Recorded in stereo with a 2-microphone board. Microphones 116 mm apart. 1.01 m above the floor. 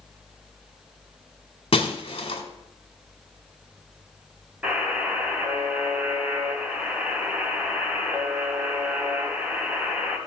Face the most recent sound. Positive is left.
turn(degrees=-15)  # may be behind; listen again after turning